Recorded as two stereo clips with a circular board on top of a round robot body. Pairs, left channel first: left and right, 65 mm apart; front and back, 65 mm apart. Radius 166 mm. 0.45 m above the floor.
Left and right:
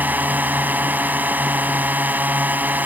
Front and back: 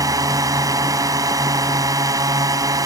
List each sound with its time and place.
0.0 s a drone: 150° right